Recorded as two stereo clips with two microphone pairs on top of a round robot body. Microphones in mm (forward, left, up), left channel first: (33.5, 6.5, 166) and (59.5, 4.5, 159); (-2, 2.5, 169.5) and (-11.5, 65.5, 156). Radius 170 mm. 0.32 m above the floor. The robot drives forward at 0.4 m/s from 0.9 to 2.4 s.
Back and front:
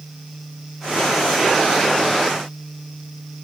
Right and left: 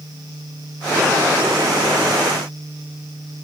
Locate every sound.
Only background noise.